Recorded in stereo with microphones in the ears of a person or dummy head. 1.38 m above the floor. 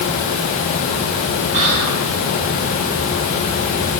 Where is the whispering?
40° right (ahead or behind), 7 m.